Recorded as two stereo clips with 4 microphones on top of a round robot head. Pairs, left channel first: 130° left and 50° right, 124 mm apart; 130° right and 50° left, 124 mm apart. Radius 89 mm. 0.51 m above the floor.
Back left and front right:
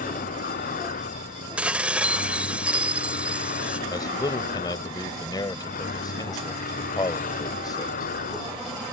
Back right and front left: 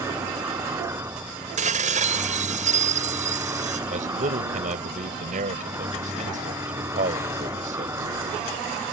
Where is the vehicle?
120° left.